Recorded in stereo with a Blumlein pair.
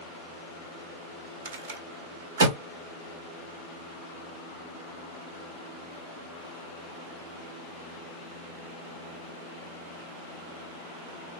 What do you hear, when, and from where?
1.4 s a rattle: 55° right, 1.6 m